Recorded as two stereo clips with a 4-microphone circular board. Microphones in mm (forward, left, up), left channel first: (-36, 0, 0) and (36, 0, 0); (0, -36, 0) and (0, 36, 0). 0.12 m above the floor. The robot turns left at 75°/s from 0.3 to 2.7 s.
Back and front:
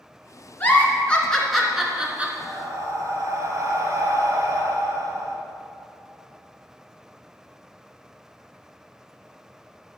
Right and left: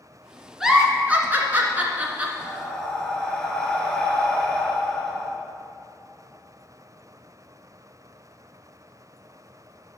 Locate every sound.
0.6 s a giggle: 165° left, 1.3 m; by 2.3 s 35° left, 1.3 m
2.4 s breathing: 10° left, 1.5 m; by 5.3 s 10° right, 1.5 m